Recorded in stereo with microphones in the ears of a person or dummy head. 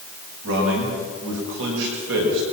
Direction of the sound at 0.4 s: 70° right (ahead or behind).